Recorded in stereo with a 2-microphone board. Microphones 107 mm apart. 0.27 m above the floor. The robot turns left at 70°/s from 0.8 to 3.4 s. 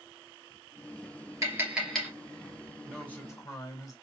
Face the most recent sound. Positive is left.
turn(degrees=145)